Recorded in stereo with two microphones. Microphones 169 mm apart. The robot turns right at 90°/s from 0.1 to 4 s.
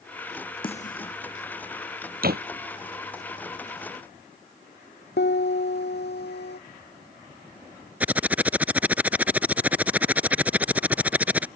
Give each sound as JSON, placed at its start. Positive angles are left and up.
{"t": 0.6, "sound": "a snare drum", "side_deg": 30}
{"t": 2.2, "sound": "a door slam", "side_deg": -60}
{"t": 5.2, "sound": "a piano", "side_deg": 80}
{"t": 8.0, "sound": "typing on a keyboard", "side_deg": -10}